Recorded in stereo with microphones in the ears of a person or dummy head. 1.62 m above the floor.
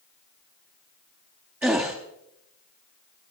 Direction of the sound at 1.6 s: 5° right (ahead or behind).